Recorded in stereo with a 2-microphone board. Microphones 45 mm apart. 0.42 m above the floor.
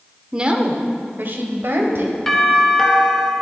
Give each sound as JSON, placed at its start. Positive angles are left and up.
{"t": 0.3, "sound": "a woman speaking", "side_deg": -20, "distance_m": 0.9}
{"t": 2.3, "sound": "a doorbell", "side_deg": 10, "distance_m": 1.5}